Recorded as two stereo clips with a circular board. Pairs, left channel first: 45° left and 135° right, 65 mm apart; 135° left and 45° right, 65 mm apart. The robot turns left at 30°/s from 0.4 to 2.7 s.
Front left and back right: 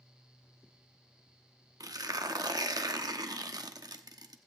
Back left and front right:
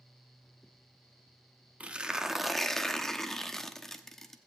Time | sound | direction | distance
1.8 | tearing paper | 115° right | 0.8 m